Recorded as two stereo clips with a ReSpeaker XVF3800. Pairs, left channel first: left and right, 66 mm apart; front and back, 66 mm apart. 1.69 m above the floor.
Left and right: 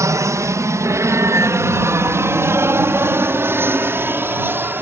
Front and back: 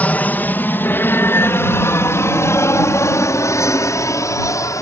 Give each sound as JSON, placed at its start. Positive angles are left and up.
{"t": 0.0, "sound": "an aircraft", "azimuth_deg": -65}